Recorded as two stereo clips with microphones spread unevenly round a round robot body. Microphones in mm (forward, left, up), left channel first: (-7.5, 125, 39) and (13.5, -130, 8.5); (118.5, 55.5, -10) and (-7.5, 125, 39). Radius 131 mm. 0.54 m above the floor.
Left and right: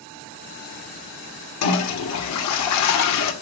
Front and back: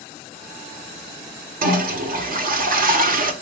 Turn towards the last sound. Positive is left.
turn(degrees=120)